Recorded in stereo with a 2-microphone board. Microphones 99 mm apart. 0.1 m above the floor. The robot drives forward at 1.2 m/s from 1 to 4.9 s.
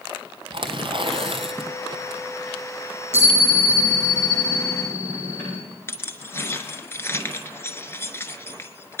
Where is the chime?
20° left (ahead or behind), 9.5 m.